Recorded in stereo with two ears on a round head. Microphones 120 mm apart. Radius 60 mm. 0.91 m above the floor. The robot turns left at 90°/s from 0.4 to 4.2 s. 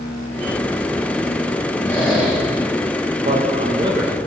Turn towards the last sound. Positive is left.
turn(degrees=-165)